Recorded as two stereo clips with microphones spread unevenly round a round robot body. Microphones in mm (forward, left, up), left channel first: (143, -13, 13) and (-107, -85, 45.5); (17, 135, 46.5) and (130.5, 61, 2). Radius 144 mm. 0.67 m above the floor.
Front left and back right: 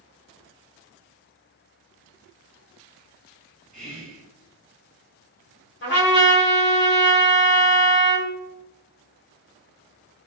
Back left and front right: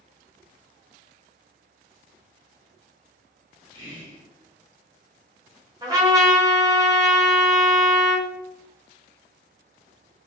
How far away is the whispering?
About 1.5 m.